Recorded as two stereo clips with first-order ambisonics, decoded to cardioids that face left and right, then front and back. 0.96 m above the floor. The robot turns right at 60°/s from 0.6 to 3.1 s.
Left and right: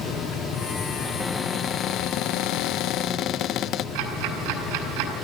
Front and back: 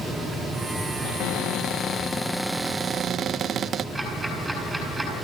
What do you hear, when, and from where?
1.0 s a cupboard door: straight ahead, 0.5 m; by 3.9 s 125° left, 0.5 m
4.0 s ticking: 95° right, 7 m